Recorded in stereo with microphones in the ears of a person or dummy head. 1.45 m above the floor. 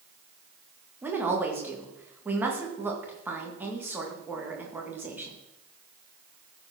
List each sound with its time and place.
1.0 s a woman speaking: 10° right (ahead or behind), 1.8 m